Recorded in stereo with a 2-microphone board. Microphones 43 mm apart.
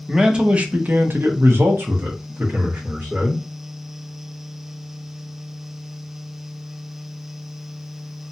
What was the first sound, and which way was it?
A man speaking, 15° right (ahead or behind).